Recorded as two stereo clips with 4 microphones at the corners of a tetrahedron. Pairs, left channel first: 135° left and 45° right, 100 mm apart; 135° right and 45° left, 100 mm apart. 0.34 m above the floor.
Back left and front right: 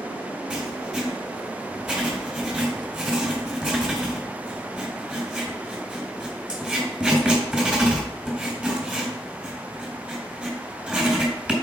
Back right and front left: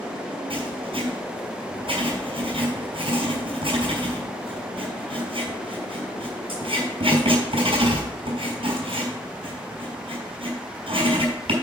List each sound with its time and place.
0.5 s writing: 35° left, 3.5 m